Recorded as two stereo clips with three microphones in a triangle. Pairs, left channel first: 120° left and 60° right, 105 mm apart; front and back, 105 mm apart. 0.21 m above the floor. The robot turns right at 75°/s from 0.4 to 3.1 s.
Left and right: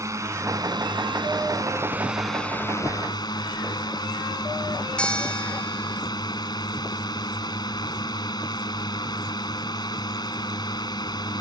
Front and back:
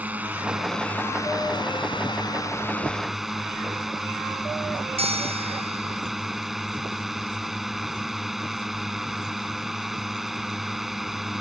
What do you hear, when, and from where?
0.0 s a drone: 110° right; by 11.4 s 95° left
5.0 s a bell: 160° right